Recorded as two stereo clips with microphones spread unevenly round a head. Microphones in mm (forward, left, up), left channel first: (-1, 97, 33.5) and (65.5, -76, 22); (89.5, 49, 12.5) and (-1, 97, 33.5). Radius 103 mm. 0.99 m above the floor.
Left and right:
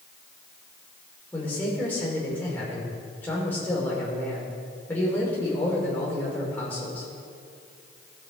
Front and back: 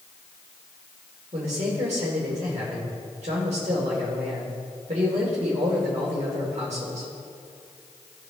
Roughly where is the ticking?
No ticking in this recording.